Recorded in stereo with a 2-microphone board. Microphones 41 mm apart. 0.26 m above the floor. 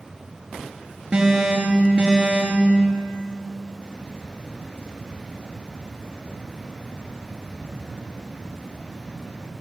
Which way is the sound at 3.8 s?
25° right (ahead or behind).